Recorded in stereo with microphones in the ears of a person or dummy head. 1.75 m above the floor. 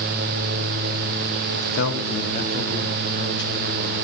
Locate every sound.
1.5 s a man speaking: 75° left (ahead or behind), 1.3 m; by 4.0 s 15° left (ahead or behind), 2.5 m